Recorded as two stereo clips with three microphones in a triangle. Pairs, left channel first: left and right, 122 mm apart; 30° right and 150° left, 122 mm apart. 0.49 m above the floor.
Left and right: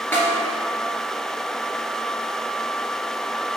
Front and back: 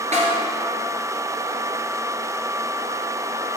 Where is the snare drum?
165° left, 1.5 m.